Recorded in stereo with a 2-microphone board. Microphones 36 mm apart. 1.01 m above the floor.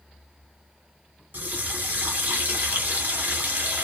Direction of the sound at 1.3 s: 55° right (ahead or behind).